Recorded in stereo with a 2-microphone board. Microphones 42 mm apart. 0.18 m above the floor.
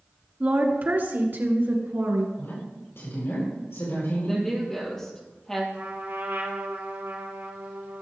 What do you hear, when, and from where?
0.4 s a woman speaking: 40° right (ahead or behind), 2 m; by 2.3 s 60° right (ahead or behind), 3 m
2.4 s a woman speaking: 65° left (ahead or behind), 5 m
4.3 s a woman speaking: 10° left (ahead or behind), 4.5 m
5.7 s a trumpet: 70° right (ahead or behind), 3 m